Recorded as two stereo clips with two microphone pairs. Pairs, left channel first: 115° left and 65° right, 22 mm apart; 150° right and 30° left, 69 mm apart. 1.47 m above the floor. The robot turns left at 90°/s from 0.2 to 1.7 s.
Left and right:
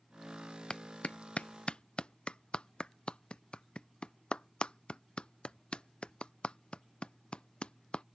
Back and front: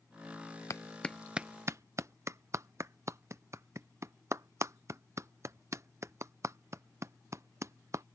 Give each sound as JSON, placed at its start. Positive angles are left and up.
{"t": 0.7, "sound": "a clap", "azimuth_deg": 165}